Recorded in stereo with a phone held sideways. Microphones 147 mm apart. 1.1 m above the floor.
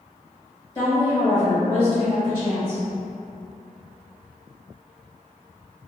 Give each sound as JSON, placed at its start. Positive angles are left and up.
{"t": 0.8, "sound": "a woman speaking", "side_deg": 20, "distance_m": 1.5}